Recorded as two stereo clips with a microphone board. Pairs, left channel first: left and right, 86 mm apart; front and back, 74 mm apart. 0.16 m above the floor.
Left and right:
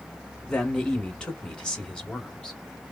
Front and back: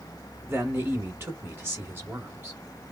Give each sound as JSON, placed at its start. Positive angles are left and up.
{"t": 0.5, "sound": "a man speaking", "azimuth_deg": 165, "distance_m": 1.2}